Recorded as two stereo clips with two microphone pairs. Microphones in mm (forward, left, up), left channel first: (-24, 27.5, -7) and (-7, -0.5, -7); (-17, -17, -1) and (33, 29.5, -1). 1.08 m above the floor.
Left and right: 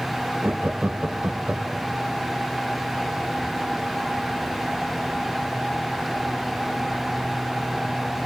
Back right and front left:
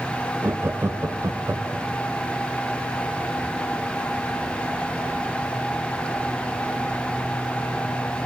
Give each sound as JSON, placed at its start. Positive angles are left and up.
{"t": 0.4, "sound": "laughter", "azimuth_deg": -10, "distance_m": 0.8}